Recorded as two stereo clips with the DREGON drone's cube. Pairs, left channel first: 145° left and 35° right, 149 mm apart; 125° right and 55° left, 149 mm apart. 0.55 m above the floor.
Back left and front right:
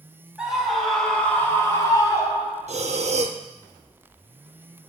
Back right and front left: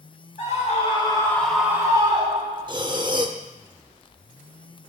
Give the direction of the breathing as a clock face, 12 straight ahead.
12 o'clock.